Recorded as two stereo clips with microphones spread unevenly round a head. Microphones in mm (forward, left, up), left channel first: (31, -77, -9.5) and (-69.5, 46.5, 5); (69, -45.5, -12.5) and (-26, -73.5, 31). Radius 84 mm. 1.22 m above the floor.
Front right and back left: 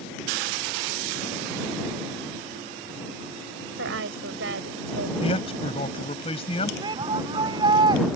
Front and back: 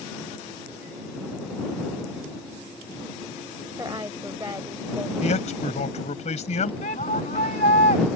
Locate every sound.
3.8 s a woman speaking: 125° left
5.2 s a man speaking: 10° left
6.8 s a shout: 60° left